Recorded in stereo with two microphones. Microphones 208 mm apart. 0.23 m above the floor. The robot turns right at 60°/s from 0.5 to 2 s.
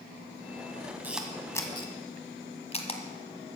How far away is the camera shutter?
About 1.4 m.